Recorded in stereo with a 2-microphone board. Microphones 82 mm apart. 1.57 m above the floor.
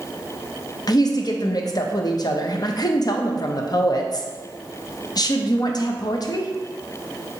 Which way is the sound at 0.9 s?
50° left (ahead or behind).